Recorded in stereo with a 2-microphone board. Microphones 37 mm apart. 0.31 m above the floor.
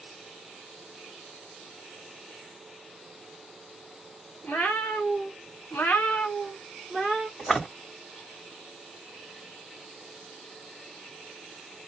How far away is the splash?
About 1.8 m.